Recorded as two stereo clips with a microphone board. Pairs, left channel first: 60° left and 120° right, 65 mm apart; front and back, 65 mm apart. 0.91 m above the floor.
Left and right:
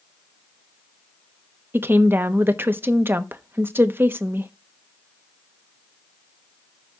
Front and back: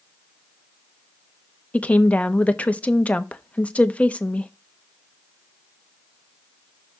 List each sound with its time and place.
1.7 s a woman speaking: 65° right, 0.9 m